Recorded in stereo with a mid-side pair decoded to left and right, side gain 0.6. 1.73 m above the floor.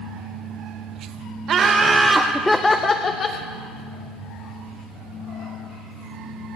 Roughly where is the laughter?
Ahead right.